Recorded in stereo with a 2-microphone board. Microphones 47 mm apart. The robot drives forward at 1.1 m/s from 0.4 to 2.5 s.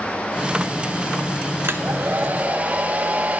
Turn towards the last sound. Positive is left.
turn(degrees=-30)  # may be behind; listen again after turning